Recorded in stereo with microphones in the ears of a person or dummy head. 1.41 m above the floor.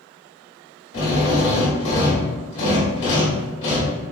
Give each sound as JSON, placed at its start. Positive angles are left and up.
{"t": 0.9, "sound": "a drill", "side_deg": 35, "distance_m": 1.3}